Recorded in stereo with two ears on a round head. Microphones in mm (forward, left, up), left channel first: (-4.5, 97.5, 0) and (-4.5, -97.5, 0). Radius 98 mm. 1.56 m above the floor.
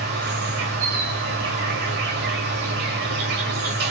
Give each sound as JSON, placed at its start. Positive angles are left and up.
{"t": 0.0, "sound": "an insect", "side_deg": -50, "distance_m": 2.0}